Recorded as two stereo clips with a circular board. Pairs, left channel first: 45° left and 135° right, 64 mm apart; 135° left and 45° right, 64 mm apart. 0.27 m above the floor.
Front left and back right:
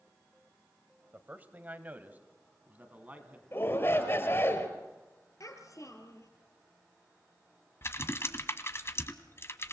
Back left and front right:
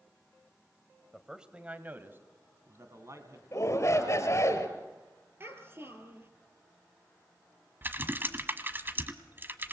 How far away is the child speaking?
About 4 m.